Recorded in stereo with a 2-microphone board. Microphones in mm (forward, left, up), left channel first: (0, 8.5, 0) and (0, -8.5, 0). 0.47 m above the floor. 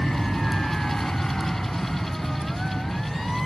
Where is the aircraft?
65° left (ahead or behind).